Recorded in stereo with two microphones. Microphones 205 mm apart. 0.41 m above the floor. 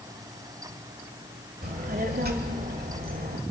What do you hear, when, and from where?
1.6 s a child speaking: 45° right (ahead or behind), 1.4 m